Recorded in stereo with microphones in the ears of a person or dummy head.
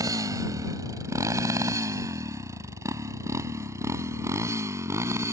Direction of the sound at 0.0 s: 20° right (ahead or behind).